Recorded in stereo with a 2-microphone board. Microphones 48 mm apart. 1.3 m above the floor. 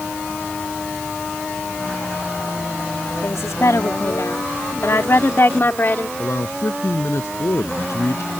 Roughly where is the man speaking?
Left.